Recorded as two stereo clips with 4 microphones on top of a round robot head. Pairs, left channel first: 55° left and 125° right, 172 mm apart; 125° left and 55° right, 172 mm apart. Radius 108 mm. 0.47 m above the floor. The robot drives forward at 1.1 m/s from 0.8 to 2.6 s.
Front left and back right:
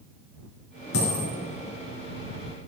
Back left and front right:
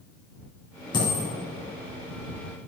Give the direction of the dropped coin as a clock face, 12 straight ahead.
10 o'clock.